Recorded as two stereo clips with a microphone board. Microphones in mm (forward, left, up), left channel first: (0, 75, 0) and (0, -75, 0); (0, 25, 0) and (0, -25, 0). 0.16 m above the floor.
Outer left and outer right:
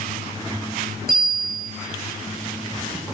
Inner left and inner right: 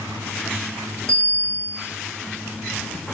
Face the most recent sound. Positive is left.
turn(degrees=-75)  # may be behind; listen again after turning